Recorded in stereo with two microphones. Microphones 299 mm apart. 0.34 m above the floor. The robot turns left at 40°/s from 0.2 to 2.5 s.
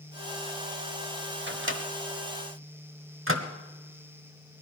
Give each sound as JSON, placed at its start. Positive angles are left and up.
{"t": 1.5, "sound": "a microwave", "side_deg": -35, "distance_m": 1.0}